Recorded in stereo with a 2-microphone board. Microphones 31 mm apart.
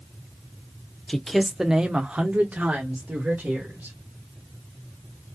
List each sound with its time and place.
1.1 s a man speaking: 15° left (ahead or behind), 0.7 m; by 4.0 s 75° right (ahead or behind), 2 m